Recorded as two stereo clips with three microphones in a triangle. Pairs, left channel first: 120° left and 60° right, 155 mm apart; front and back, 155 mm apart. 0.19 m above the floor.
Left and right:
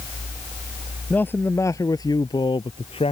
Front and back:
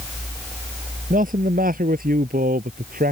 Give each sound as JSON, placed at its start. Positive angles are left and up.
{"t": 1.1, "sound": "a man speaking", "azimuth_deg": -160}